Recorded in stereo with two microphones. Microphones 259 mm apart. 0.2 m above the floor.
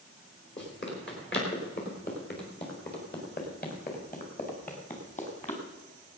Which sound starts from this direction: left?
Running footsteps, at 0.6 s.